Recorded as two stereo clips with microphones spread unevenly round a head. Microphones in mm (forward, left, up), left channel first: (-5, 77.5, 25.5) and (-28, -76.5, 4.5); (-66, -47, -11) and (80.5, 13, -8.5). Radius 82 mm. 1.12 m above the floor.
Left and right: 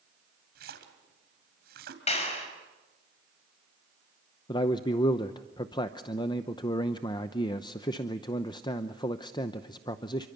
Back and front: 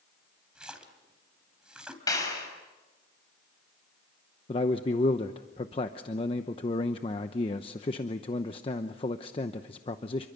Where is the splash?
60° right, 3 m.